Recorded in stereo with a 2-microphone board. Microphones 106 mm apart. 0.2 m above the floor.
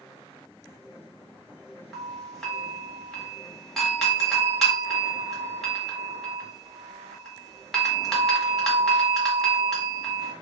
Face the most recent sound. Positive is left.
turn(degrees=5)  # may be behind; listen again after turning